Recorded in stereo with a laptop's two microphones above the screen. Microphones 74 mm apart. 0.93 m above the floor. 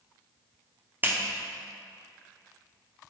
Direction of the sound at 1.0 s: 25° right (ahead or behind).